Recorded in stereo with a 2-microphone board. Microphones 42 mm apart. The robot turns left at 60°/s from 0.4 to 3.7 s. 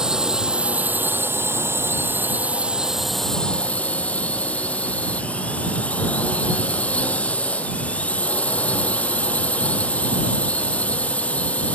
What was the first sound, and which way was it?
A drone, 15° right.